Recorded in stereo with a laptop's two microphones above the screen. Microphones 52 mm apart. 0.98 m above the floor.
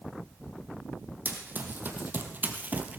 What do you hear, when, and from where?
1.2 s running footsteps: 40° right (ahead or behind), 2.5 m; by 3.0 s 30° right (ahead or behind), 1.2 m